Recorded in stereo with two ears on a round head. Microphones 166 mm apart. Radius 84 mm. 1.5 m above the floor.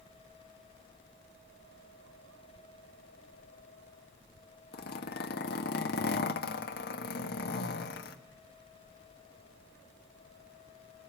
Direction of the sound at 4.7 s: 55° left (ahead or behind).